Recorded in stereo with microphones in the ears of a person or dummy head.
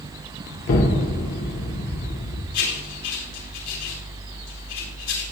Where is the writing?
80° left, 4.5 m.